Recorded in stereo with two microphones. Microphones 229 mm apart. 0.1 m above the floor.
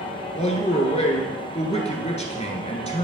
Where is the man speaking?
30° left (ahead or behind), 1.2 m.